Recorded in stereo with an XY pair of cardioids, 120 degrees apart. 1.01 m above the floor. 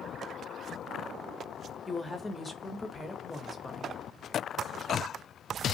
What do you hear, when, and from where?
1.9 s a woman speaking: 15° left, 0.7 m